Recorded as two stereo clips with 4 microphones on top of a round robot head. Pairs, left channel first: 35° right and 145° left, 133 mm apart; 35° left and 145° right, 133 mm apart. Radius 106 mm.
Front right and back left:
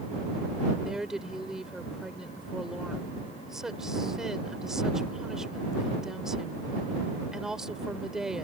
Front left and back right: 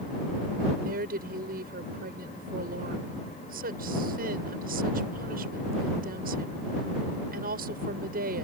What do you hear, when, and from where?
0.8 s a woman speaking: 130° right